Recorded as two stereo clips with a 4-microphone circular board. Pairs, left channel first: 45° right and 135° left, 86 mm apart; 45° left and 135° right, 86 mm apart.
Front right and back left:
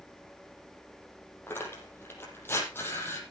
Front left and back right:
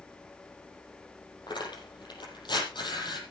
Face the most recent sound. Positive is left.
turn(degrees=15)